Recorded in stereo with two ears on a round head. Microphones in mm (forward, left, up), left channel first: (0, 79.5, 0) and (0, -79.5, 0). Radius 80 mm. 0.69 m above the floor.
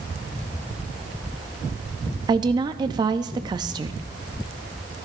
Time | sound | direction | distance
2.3 | a woman speaking | 25° right (ahead or behind) | 0.5 m